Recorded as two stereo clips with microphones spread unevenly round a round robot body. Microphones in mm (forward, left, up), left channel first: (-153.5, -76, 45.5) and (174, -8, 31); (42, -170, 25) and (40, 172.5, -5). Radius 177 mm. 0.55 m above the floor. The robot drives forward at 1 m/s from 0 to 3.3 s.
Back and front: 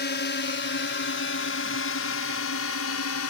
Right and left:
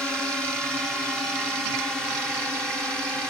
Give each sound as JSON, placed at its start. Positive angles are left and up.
{"t": 0.0, "sound": "a drone", "azimuth_deg": 175}